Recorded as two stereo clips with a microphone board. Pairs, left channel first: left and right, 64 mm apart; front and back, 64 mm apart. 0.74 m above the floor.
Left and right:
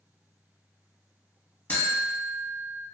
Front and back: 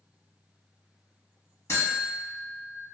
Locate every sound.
1.7 s a buzzer: 40° left, 1.1 m